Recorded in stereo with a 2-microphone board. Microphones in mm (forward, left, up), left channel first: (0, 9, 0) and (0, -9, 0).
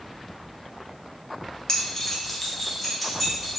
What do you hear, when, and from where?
1.7 s keys jangling: 45° left (ahead or behind), 0.6 m; by 3.6 s 10° left (ahead or behind), 1.8 m